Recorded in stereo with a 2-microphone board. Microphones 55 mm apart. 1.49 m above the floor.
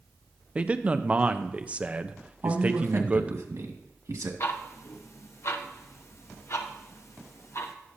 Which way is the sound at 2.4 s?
80° right.